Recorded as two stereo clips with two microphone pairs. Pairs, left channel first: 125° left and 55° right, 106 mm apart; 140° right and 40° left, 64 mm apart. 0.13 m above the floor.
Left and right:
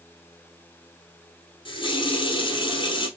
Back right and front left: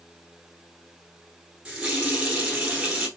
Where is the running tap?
115° left, 1.1 m.